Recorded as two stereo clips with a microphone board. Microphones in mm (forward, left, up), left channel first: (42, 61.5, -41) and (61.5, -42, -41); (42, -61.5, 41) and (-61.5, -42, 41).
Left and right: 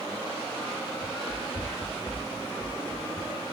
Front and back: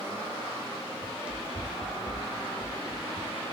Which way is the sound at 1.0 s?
100° left.